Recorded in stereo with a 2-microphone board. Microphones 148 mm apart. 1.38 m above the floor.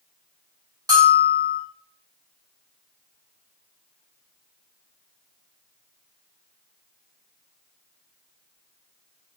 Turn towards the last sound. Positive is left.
turn(degrees=-30)  # may be behind; listen again after turning